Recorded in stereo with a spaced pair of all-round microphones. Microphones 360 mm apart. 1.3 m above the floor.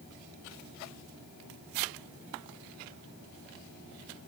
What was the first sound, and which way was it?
Only background noise.